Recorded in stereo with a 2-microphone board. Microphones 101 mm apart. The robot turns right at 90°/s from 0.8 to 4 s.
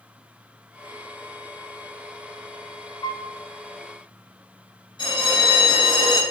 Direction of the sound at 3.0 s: 45° left (ahead or behind).